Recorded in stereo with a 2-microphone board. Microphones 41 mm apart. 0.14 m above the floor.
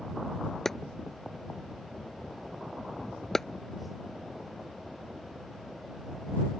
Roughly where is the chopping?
Centre.